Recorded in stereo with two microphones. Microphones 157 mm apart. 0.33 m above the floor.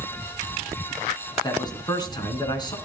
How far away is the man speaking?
About 4 m.